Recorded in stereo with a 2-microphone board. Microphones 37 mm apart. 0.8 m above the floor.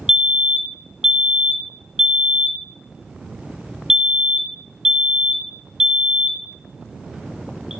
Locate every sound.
0.1 s a fire alarm: 15° right (ahead or behind), 1.3 m